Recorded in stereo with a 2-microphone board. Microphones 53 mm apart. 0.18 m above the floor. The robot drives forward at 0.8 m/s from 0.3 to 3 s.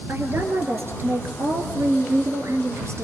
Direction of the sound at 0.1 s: 45° right (ahead or behind).